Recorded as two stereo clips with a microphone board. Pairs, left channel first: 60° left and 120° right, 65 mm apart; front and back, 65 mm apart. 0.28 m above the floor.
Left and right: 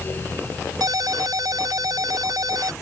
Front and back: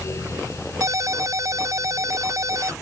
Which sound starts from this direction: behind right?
A ringtone, at 0.8 s.